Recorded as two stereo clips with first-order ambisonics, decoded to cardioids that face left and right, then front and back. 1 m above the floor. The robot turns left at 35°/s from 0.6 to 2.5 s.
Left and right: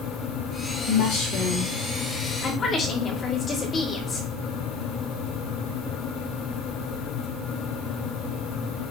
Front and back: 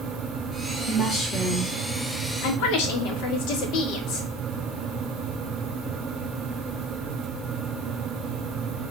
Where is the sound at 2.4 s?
25° left, 2 m.